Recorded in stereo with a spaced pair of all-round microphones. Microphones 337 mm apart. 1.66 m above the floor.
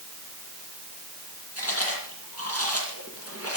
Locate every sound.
1.6 s chewing: 45° left (ahead or behind), 9 m